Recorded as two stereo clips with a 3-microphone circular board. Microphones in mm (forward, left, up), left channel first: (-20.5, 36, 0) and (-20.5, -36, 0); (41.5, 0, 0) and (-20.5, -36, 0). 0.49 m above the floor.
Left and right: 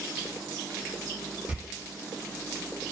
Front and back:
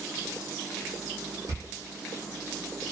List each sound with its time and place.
1.5 s a door slam: 155° right, 0.6 m